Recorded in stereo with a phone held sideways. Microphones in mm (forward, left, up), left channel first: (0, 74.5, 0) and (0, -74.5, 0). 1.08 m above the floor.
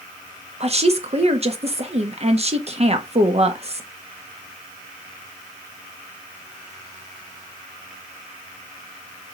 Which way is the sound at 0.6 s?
45° right (ahead or behind).